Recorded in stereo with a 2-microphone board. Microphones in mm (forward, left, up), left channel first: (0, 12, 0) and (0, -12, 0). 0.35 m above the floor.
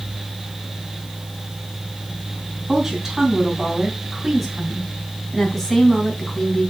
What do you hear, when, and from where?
2.7 s a woman speaking: 20° right (ahead or behind), 3.5 m; by 6.7 s 20° left (ahead or behind), 3.5 m